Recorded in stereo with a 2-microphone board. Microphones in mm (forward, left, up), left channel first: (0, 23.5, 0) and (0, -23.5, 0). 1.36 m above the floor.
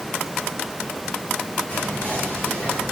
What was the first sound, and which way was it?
Whispering, 45° left (ahead or behind).